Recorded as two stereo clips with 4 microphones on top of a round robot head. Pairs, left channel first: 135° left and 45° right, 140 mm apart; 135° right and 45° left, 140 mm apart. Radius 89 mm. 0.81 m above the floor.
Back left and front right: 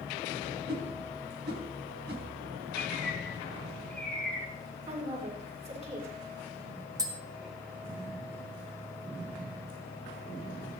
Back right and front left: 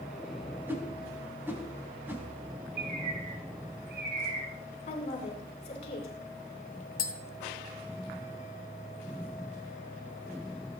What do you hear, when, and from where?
0.7 s a whoosh: 30° right, 4 m
2.8 s a bird: 55° left, 3 m
4.9 s a woman speaking: 90° right, 8.5 m
7.0 s tapping: 110° right, 2.5 m